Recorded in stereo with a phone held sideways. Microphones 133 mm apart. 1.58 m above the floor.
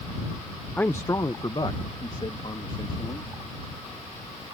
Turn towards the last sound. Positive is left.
turn(degrees=45)  # may be behind; listen again after turning